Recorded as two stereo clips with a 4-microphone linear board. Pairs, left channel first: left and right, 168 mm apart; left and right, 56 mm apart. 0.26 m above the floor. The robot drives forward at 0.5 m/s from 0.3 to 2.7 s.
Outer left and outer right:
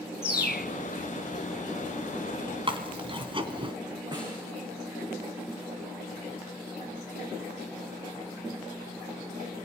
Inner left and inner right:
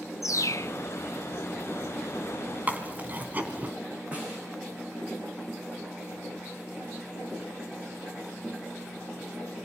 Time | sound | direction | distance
0.2 | a bird | 85° left | 0.8 m
2.7 | chewing | 30° right (ahead or behind) | 2.5 m
4.1 | a snare drum | 25° right (ahead or behind) | 7.5 m